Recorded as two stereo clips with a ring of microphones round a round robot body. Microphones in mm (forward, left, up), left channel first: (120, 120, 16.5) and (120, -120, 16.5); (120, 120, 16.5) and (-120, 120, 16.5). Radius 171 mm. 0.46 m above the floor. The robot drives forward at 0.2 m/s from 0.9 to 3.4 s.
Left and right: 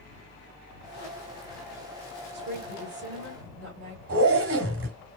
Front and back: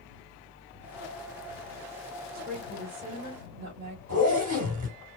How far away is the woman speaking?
About 2 m.